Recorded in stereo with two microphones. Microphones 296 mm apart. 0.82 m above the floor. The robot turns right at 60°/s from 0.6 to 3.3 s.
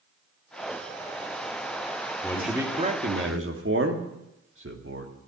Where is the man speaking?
170° left, 1.9 m; by 5.1 s 125° right, 1.9 m.